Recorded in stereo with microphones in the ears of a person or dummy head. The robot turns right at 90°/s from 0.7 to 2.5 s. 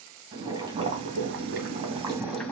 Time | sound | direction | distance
0.3 | boiling | 150° right | 2.5 m